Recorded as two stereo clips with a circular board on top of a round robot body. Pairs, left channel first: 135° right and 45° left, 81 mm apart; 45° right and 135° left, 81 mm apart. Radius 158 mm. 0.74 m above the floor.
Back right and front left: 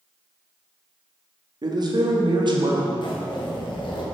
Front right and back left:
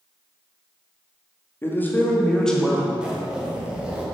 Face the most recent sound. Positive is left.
turn(degrees=-145)